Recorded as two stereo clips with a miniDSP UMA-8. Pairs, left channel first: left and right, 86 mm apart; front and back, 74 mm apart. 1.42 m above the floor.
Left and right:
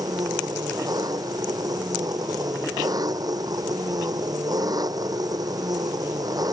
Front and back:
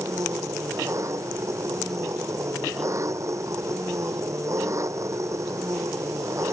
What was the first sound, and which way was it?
An engine running, 135° right.